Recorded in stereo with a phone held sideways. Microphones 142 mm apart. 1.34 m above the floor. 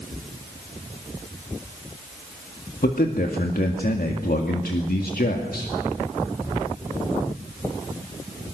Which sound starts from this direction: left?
A man speaking, at 2.8 s.